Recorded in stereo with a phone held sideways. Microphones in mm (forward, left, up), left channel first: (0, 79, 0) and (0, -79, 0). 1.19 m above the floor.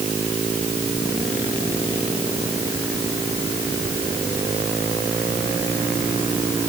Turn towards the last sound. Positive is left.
No sound to turn to.